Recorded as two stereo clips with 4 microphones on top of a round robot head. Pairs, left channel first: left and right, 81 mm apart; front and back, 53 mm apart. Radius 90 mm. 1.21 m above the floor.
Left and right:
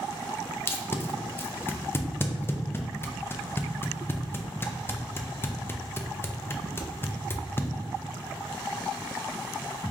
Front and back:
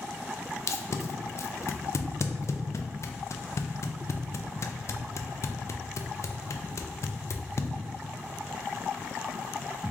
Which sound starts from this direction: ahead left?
Tape being pulled, at 0.7 s.